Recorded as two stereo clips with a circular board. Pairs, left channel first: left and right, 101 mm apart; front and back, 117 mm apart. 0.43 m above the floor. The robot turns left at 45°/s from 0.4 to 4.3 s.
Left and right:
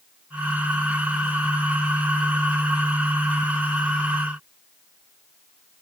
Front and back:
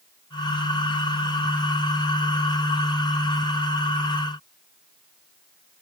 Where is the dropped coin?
No dropped coin in this recording.